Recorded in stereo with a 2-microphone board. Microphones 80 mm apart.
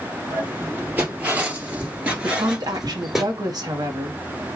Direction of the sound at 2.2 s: 55° right (ahead or behind).